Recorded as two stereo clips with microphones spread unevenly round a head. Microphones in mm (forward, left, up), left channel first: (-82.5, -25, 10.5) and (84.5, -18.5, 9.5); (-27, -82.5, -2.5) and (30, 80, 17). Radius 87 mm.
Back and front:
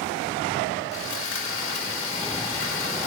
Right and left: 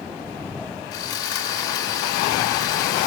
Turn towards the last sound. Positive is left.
turn(degrees=180)